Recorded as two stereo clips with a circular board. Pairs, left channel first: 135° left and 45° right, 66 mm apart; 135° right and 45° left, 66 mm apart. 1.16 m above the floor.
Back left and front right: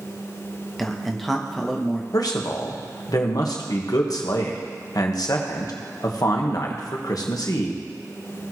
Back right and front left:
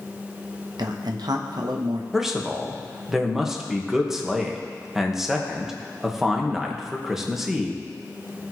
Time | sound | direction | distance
0.8 | a man speaking | 50° left | 0.9 m
2.1 | a man speaking | 130° left | 1.3 m